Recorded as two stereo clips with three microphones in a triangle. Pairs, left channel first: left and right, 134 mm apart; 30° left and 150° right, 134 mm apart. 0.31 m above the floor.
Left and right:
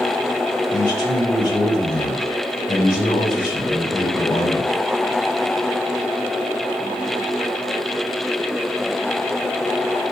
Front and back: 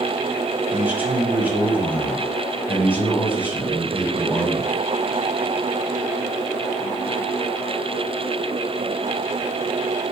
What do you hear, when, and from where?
0.7 s a man speaking: 135° left, 2 m